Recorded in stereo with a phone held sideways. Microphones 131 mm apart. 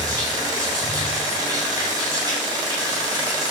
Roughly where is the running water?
Right.